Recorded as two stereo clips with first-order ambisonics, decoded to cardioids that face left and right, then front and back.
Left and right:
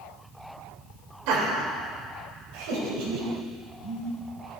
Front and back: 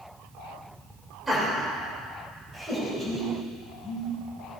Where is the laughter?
100° right, 3.5 m.